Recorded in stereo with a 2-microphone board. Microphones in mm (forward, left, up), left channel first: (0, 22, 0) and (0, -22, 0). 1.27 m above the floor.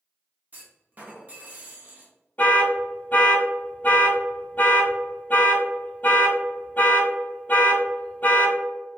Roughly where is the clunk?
Right.